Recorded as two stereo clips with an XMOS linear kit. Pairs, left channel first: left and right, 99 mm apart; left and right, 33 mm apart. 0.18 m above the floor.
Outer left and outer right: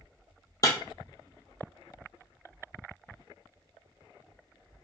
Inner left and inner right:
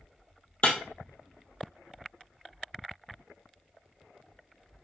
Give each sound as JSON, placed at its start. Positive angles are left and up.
{"t": 0.6, "sound": "breaking glass", "side_deg": 40, "distance_m": 1.0}